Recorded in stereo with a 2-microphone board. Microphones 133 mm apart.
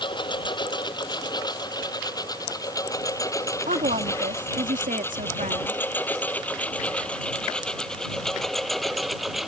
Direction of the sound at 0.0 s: 35° left (ahead or behind).